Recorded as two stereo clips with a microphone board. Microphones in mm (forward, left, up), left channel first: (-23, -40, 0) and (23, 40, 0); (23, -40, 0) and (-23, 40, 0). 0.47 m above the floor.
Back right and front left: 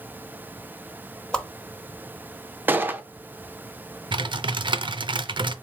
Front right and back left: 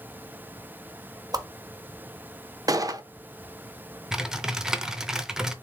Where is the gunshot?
120° left, 0.5 m.